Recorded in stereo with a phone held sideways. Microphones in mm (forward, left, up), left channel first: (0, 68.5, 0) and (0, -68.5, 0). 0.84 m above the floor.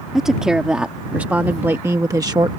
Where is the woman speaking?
5° right (ahead or behind); by 2.5 s 30° right (ahead or behind).